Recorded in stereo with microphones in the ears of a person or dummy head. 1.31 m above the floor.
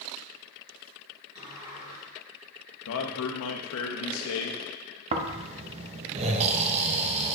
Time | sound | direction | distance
1.4 | a sliding door | 30° right (ahead or behind) | 3 m
2.9 | a man speaking | 80° left | 0.9 m
5.1 | snoring | 40° right (ahead or behind) | 0.6 m